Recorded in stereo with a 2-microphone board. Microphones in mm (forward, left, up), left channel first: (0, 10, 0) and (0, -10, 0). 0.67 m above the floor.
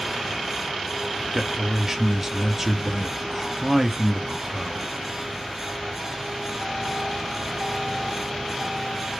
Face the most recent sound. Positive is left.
turn(degrees=-10)  # may be behind; listen again after turning